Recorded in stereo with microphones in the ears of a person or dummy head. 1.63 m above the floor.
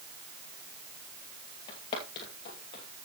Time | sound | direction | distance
1.7 | footsteps | 25° left (ahead or behind) | 2 m